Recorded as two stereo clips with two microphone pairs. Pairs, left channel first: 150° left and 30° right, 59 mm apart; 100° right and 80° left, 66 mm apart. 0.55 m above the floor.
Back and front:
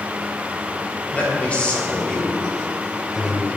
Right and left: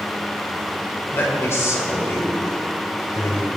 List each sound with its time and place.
1.1 s a man speaking: 145° right, 3 m; by 3.5 s 105° right, 1.7 m